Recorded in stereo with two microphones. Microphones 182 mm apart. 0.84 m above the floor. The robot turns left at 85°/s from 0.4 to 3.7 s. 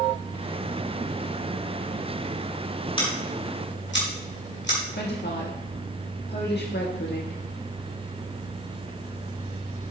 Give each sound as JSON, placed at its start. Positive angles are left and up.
{"t": 3.0, "sound": "scissors", "side_deg": 25, "distance_m": 2.5}
{"t": 5.0, "sound": "a woman speaking", "side_deg": 65, "distance_m": 1.4}